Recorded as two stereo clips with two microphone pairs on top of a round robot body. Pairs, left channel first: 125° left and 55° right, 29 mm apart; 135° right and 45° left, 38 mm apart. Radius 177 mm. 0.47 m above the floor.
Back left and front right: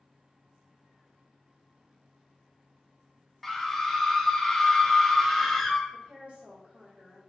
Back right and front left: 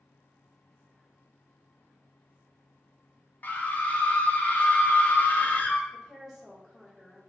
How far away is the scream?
About 0.9 m.